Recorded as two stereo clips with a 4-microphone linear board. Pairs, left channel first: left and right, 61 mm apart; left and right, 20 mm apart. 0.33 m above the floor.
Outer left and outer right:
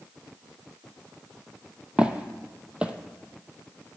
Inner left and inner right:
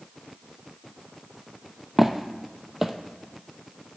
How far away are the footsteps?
About 0.6 m.